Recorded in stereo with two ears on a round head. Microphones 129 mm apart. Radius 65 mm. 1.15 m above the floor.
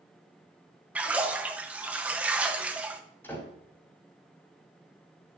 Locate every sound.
0.9 s a splash: 10° right (ahead or behind), 0.8 m
3.2 s a door slam: 15° left (ahead or behind), 4.5 m